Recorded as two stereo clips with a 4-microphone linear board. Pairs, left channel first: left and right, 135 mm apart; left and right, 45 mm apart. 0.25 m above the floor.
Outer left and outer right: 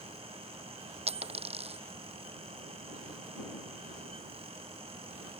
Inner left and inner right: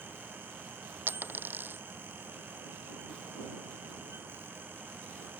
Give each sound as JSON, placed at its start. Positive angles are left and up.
{"t": 1.1, "sound": "a dropped coin", "side_deg": -50}